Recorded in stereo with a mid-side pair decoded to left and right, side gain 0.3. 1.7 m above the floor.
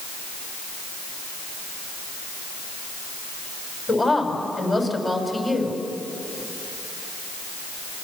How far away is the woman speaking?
About 6.5 m.